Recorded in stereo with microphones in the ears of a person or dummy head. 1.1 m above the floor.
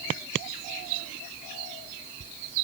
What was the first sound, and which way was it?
Only background noise.